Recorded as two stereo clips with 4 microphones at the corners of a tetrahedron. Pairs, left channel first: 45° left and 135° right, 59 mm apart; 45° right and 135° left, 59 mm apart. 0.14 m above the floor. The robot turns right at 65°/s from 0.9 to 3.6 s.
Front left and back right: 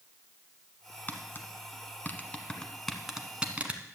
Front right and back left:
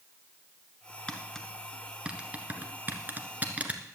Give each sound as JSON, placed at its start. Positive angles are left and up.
{"t": 1.1, "sound": "tapping", "azimuth_deg": 10, "distance_m": 1.2}